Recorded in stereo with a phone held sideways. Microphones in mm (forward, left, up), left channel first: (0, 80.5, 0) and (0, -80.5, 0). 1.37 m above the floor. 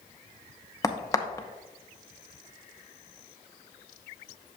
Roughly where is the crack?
Left.